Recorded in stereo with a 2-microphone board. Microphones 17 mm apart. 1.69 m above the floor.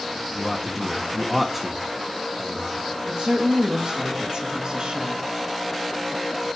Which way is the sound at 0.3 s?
5° right (ahead or behind).